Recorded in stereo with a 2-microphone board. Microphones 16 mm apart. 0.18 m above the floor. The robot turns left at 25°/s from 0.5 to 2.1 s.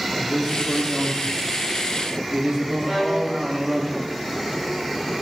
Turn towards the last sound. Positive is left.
turn(degrees=-25)  # may be behind; listen again after turning